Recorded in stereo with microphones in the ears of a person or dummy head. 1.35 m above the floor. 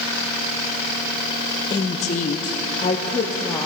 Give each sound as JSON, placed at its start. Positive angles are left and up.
{"t": 1.7, "sound": "a woman speaking", "side_deg": 30, "distance_m": 0.7}